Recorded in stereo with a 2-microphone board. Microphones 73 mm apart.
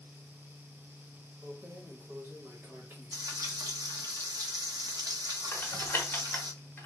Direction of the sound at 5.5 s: 25° left (ahead or behind).